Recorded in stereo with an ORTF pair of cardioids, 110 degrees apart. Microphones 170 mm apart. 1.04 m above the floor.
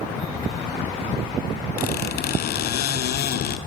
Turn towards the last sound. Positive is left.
turn(degrees=65)